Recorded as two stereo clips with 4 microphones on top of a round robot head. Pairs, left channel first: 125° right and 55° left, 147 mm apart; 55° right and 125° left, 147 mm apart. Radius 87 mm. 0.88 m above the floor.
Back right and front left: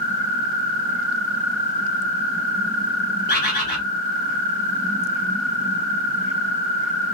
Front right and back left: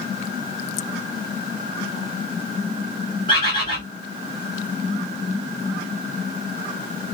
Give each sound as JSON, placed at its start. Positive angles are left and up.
{"t": 3.3, "sound": "a bird", "azimuth_deg": -110, "distance_m": 1.5}